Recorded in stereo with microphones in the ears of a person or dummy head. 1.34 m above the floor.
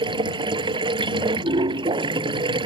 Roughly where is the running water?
Right.